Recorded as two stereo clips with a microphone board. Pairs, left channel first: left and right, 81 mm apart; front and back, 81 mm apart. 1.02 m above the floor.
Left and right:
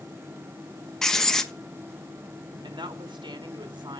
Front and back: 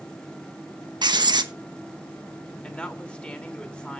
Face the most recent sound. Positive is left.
turn(degrees=-75)